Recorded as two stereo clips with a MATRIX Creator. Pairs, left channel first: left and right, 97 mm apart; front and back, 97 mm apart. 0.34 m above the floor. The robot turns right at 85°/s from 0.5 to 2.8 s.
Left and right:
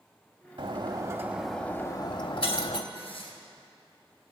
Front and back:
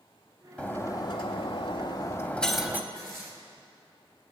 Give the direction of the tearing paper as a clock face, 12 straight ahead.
8 o'clock.